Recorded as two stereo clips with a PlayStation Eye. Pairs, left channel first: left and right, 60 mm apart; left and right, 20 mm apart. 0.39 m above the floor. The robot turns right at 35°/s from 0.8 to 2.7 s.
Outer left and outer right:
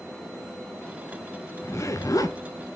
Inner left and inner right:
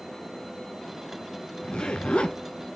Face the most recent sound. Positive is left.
turn(degrees=85)